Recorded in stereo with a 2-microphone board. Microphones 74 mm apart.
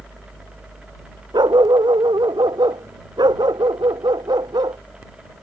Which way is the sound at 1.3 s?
90° right.